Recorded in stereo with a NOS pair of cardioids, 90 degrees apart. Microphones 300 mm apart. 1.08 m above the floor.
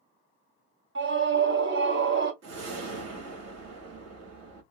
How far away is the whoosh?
About 2 m.